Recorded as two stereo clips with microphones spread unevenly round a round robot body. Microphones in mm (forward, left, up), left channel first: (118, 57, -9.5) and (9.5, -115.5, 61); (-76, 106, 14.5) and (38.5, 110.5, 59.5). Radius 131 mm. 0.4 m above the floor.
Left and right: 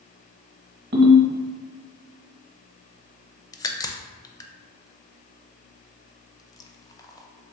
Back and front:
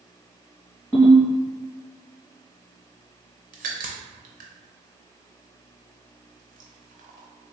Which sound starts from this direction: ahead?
A crack, at 3.5 s.